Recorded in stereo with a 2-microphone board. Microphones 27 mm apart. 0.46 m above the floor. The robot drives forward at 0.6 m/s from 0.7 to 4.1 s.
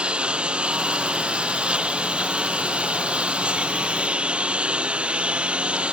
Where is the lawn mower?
40° right (ahead or behind); by 5.9 s 45° right (ahead or behind).